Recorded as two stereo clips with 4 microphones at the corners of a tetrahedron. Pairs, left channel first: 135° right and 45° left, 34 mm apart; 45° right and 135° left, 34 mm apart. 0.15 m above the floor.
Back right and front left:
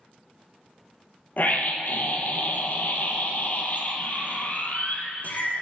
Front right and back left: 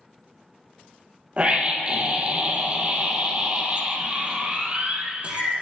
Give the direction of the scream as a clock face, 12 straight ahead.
6 o'clock.